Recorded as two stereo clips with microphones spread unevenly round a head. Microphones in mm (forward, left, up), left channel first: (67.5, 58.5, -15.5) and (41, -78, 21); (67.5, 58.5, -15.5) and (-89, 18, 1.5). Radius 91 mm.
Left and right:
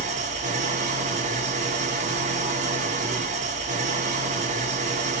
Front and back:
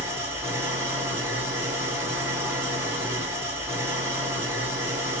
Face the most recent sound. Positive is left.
turn(degrees=-90)